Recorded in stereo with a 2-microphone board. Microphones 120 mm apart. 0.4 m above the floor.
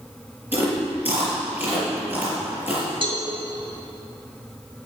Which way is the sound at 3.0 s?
45° right (ahead or behind).